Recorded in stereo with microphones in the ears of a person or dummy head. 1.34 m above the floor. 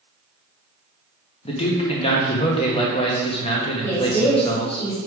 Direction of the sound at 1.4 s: 25° left (ahead or behind).